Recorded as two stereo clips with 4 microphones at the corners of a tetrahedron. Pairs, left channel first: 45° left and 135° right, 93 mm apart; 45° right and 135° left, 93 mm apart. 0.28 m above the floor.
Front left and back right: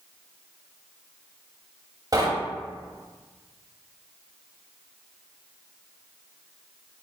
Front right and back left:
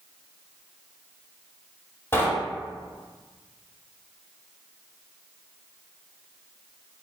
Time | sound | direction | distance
2.1 | knocking | 100° right | 0.9 m